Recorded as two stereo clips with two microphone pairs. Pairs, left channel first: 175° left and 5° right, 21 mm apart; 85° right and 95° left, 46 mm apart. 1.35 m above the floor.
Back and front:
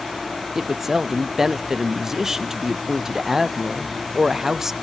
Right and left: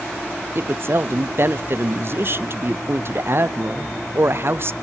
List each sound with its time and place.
0.6 s a woman speaking: 65° left, 0.7 m